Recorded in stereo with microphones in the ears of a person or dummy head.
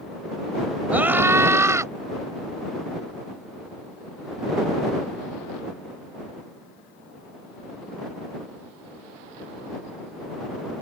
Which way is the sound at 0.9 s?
10° right (ahead or behind).